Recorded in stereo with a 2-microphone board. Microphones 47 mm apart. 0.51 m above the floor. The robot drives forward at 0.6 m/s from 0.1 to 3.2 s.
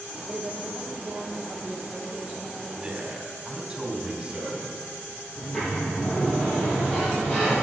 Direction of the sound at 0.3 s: 20° right (ahead or behind).